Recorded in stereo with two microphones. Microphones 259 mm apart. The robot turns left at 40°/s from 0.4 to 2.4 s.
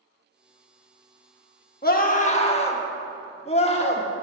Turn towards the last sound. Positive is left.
turn(degrees=25)  # may be behind; listen again after turning